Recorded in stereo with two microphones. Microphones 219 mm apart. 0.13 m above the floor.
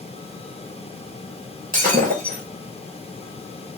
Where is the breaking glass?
40° right (ahead or behind), 1.3 m.